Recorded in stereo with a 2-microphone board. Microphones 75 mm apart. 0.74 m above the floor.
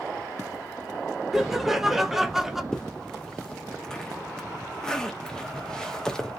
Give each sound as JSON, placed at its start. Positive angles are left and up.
{"t": 1.3, "sound": "laughter", "side_deg": -5, "distance_m": 0.6}
{"t": 2.7, "sound": "a zipper", "side_deg": 10, "distance_m": 0.6}